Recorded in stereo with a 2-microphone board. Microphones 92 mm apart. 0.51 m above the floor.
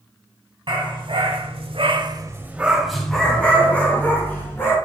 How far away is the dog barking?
About 1.6 m.